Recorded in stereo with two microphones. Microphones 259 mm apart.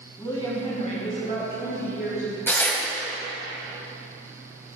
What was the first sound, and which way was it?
A woman speaking, 15° left (ahead or behind).